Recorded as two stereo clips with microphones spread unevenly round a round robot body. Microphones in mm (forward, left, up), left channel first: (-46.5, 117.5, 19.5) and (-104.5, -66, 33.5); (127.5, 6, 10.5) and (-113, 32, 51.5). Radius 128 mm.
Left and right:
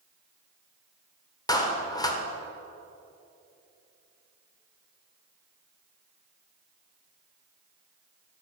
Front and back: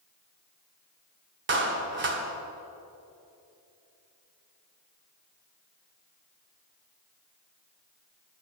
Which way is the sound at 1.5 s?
135° left.